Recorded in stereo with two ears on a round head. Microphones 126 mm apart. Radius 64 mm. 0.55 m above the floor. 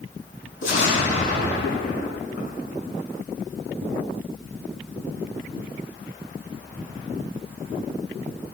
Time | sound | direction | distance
0.6 | an explosion | 65° left (ahead or behind) | 7 m